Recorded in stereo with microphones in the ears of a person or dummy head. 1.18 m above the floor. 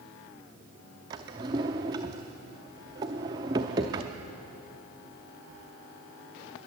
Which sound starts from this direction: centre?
A drawer, at 1.1 s.